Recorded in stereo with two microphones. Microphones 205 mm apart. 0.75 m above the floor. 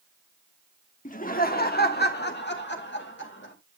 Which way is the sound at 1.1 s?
40° left (ahead or behind).